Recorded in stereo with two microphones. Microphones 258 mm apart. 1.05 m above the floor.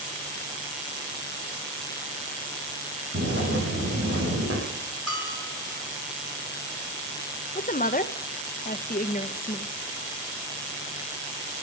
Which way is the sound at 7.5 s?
35° left (ahead or behind).